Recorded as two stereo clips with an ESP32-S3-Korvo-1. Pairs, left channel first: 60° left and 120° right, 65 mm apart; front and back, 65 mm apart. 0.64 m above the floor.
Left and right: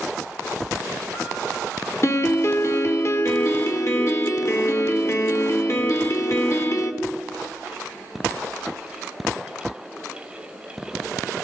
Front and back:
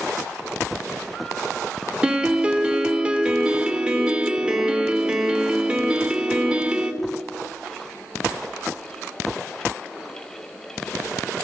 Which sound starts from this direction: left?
A piano, at 2.0 s.